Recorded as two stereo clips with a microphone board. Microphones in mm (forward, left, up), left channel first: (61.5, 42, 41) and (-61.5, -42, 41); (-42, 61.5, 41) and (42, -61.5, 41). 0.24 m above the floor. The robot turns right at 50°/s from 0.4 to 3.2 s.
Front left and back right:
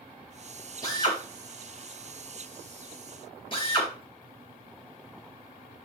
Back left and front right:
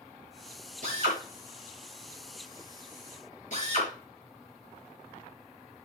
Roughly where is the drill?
Ahead right.